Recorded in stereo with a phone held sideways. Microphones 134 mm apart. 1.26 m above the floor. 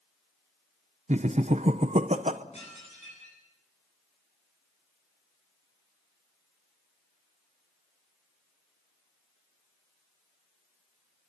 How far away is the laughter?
About 0.8 m.